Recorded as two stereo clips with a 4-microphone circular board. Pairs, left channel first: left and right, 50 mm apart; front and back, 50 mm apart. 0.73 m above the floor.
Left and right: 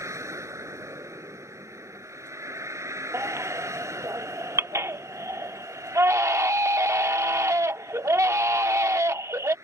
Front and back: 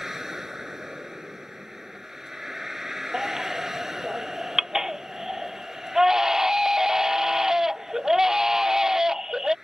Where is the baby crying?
100° right.